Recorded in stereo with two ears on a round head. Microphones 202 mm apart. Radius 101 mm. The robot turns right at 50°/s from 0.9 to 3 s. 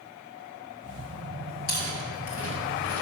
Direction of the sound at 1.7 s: 45° left (ahead or behind).